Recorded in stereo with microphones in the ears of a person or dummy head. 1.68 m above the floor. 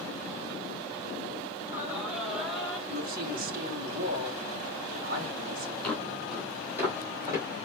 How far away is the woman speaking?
About 2 m.